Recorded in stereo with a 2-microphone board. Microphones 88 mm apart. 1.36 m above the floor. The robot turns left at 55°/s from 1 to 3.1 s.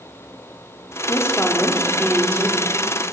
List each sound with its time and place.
1.1 s a woman speaking: 40° left, 4 m; by 2.6 s 45° right, 4 m